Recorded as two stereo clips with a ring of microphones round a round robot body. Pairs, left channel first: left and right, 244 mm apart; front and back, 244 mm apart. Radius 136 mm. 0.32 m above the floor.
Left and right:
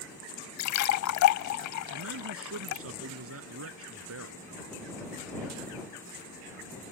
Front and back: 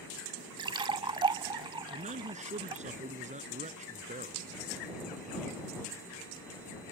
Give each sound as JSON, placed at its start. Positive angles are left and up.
{"t": 0.6, "sound": "a splash", "azimuth_deg": 105}
{"t": 1.9, "sound": "a man speaking", "azimuth_deg": -120}